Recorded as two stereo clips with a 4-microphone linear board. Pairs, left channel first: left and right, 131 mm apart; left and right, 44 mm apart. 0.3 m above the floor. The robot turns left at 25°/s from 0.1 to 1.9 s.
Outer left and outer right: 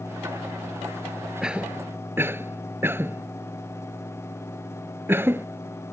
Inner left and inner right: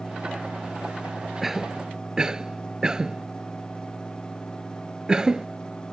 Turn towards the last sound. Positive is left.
turn(degrees=-15)  # may be behind; listen again after turning